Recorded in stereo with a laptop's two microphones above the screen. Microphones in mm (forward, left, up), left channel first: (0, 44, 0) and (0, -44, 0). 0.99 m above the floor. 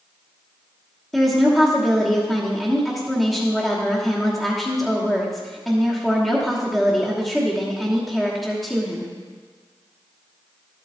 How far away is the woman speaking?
About 1.2 m.